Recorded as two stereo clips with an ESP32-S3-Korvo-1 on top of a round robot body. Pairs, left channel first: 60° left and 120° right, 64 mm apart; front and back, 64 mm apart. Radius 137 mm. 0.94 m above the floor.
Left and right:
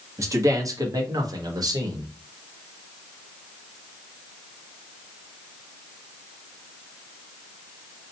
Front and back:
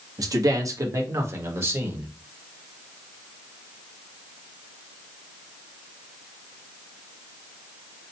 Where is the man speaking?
160° right, 1.3 m; by 2.1 s 120° right, 1.7 m.